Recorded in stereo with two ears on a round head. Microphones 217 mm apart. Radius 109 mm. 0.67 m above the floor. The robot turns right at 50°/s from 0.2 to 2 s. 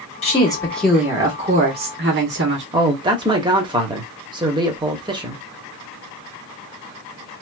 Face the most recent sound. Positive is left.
turn(degrees=-20)  # may be behind; listen again after turning